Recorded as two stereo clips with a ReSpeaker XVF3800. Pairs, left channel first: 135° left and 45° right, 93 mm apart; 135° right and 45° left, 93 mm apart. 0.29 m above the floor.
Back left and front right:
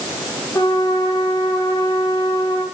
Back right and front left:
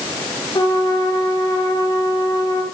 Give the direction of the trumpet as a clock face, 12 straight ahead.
6 o'clock.